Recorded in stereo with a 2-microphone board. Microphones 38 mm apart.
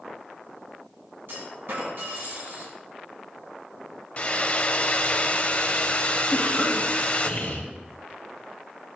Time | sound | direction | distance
1.3 | a clunk | 70° right (ahead or behind) | 2.5 m
4.2 | a hair dryer | 35° left (ahead or behind) | 0.7 m
6.3 | a cough | 45° left (ahead or behind) | 1.4 m